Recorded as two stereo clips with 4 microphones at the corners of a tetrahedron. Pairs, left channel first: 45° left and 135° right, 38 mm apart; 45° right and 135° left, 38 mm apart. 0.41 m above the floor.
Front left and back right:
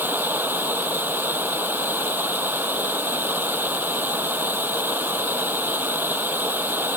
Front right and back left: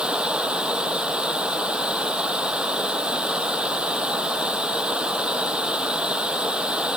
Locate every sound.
0.0 s running water: 160° right